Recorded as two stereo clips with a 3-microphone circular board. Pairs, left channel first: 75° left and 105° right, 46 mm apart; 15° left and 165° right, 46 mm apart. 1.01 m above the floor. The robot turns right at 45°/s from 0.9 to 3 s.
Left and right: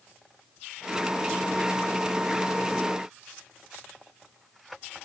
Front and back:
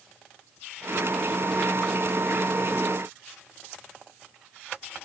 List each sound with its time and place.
Only background noise.